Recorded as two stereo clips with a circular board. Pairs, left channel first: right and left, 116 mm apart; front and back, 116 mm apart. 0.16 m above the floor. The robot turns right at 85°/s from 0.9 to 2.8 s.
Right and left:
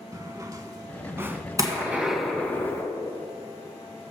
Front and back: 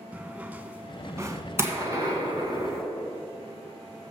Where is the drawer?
115° left, 0.6 m; by 1.4 s 160° left, 0.6 m.